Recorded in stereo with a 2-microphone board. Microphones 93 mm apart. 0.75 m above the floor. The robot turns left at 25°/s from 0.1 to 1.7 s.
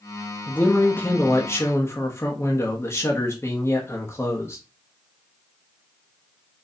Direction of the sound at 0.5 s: 145° left.